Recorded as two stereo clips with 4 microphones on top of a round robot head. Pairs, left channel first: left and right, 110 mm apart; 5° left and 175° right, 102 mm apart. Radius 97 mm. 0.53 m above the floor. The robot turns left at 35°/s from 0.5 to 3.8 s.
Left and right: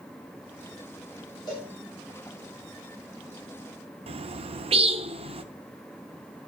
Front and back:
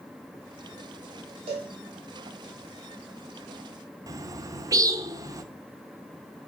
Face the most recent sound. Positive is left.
turn(degrees=-120)